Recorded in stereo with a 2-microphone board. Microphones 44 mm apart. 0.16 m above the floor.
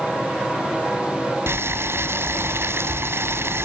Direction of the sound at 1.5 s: 65° right (ahead or behind).